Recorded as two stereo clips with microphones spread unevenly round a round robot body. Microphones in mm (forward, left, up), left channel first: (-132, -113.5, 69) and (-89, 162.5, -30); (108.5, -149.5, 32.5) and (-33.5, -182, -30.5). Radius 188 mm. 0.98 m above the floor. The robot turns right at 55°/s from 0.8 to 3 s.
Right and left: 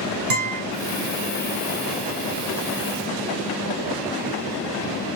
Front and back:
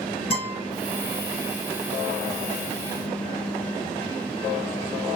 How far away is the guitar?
About 4.5 m.